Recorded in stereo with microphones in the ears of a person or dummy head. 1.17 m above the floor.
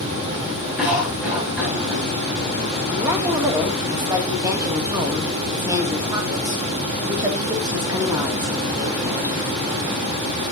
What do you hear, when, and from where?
0.8 s a cough: 10° right (ahead or behind), 6 m
2.9 s a woman speaking: 25° right (ahead or behind), 2.5 m